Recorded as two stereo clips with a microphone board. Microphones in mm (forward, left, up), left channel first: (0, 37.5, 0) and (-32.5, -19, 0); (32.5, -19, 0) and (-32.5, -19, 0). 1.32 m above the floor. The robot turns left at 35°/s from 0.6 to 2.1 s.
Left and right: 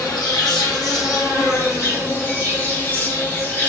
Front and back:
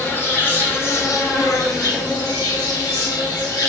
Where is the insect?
55° left, 1.0 m; by 3.7 s 5° left, 1.0 m.